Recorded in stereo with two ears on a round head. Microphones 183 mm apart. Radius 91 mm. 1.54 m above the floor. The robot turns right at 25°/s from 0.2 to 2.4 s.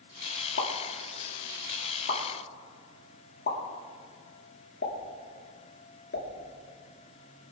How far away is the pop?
About 2 m.